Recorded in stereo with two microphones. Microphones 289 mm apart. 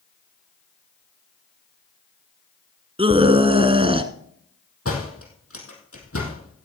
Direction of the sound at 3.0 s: 20° right (ahead or behind).